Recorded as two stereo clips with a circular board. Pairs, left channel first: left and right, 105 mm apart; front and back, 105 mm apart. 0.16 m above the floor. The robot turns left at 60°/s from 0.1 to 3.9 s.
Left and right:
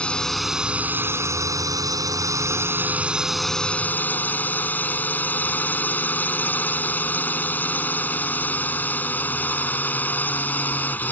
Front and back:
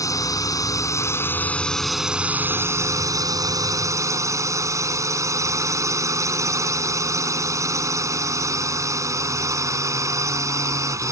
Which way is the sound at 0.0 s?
20° left.